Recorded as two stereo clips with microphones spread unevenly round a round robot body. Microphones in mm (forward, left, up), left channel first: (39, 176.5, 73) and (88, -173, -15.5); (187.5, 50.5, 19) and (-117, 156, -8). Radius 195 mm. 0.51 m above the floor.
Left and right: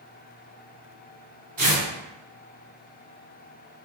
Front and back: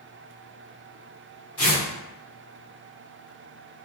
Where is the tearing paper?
60° right, 1.6 m.